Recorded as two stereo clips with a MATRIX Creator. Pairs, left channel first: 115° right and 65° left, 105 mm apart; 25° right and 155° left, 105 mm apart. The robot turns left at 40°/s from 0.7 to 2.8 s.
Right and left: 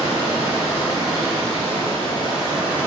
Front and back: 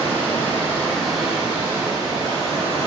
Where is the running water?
95° right, 1.2 m; by 2.9 s straight behind, 1.2 m.